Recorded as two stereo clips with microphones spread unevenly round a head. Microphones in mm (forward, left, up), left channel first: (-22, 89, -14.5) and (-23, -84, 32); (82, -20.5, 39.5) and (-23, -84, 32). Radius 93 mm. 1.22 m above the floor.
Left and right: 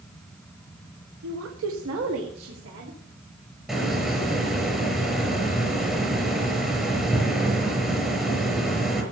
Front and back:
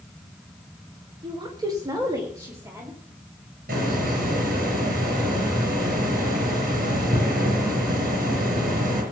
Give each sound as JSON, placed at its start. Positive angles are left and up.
{"t": 1.2, "sound": "a woman speaking", "azimuth_deg": -100, "distance_m": 1.4}
{"t": 3.7, "sound": "a hiss", "azimuth_deg": -175, "distance_m": 5.5}